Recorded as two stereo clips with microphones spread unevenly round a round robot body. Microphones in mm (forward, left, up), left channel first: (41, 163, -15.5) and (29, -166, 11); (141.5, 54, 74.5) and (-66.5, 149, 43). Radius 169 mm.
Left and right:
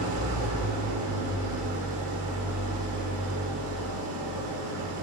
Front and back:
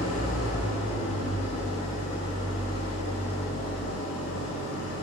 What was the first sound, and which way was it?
An engine running, 55° right.